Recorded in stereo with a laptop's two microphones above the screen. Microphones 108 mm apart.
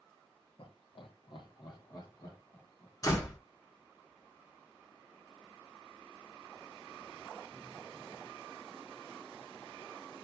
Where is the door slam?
35° left (ahead or behind), 1.0 m.